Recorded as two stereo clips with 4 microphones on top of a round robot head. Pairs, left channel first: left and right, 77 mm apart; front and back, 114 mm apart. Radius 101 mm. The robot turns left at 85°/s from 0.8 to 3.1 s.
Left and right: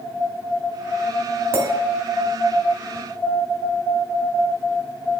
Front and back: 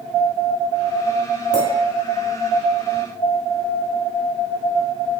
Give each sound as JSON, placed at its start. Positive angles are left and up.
{"t": 1.5, "sound": "a clink", "azimuth_deg": -30, "distance_m": 2.0}